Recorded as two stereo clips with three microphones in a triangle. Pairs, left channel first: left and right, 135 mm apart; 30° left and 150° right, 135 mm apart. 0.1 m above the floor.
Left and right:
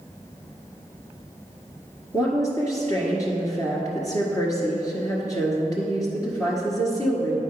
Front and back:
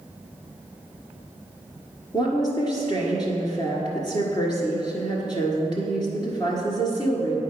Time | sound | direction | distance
2.1 | a woman speaking | 50° left | 1.6 m